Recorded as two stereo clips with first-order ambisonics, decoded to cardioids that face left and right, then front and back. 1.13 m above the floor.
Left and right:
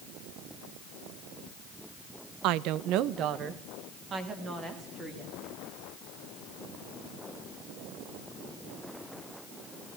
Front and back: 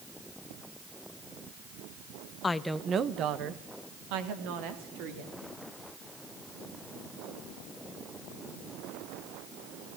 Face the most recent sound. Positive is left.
turn(degrees=-165)